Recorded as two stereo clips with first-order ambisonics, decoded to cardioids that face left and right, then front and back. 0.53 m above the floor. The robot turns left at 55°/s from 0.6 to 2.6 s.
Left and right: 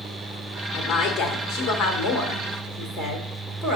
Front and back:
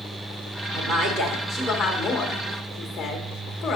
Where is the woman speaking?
135° left, 1.4 m; by 3.8 s 30° left, 1.4 m.